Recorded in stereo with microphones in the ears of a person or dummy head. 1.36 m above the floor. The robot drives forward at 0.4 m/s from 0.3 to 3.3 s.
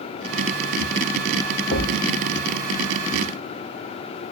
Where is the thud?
50° left (ahead or behind), 1.7 m.